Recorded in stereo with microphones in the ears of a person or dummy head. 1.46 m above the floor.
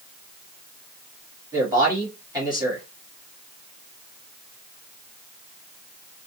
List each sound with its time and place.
1.5 s a man speaking: 20° right (ahead or behind), 2 m